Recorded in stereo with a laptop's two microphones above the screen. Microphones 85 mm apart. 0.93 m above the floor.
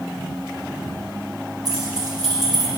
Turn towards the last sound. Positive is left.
turn(degrees=-55)  # may be behind; listen again after turning